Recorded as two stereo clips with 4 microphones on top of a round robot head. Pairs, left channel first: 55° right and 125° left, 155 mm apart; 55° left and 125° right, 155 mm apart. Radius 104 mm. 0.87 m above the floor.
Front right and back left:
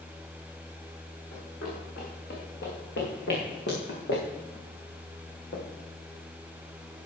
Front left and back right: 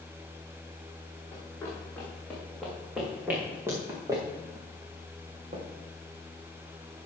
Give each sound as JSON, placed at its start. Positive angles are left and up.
{"t": 1.3, "sound": "running footsteps", "azimuth_deg": -20, "distance_m": 4.5}